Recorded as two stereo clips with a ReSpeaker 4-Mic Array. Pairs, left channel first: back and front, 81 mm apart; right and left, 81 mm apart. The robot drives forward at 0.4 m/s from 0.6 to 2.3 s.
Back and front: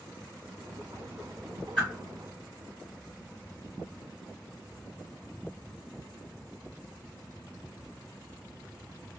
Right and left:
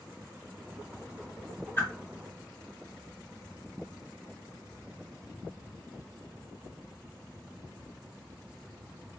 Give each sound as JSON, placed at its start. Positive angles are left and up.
{"t": 1.8, "sound": "a whoosh", "azimuth_deg": -125, "distance_m": 1.6}